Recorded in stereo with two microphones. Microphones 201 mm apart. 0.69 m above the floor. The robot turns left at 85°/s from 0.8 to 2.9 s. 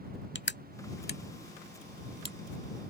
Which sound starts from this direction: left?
Crushing, at 0.3 s.